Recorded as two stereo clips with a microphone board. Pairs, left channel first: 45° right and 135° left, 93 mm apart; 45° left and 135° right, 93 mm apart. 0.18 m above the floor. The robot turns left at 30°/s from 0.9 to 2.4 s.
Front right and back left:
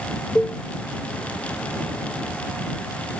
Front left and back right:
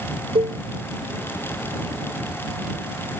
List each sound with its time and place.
0.3 s a cowbell: 125° right